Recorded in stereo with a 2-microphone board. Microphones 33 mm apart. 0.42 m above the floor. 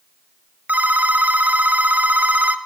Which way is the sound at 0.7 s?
70° right (ahead or behind).